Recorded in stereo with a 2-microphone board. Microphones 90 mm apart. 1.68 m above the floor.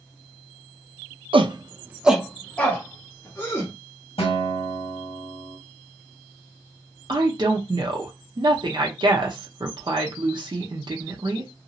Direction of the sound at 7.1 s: 55° right (ahead or behind).